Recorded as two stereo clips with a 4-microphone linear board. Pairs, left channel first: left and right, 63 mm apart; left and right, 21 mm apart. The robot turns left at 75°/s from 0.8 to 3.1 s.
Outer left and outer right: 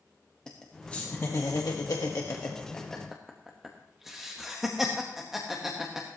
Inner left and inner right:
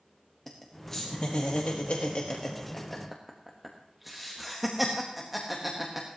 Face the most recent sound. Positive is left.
turn(degrees=-5)  # may be behind; listen again after turning